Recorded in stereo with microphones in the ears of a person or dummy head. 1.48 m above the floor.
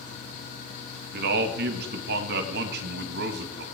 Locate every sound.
1.1 s a man speaking: 60° right (ahead or behind), 1.9 m